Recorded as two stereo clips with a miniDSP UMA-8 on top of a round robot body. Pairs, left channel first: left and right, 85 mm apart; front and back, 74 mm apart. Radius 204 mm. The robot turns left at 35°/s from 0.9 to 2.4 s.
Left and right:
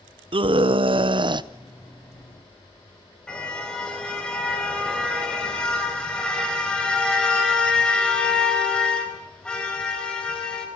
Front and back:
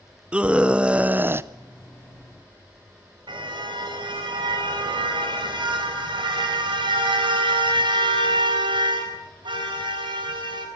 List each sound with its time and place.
0.3 s a scream: 105° right, 0.9 m; by 1.5 s 125° right, 0.9 m
3.3 s a car horn: 170° left, 4 m